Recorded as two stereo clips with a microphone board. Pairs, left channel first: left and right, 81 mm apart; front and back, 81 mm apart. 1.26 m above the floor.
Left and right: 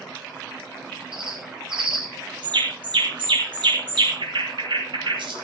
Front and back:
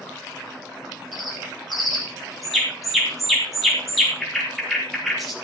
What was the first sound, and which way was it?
A bird, 90° right.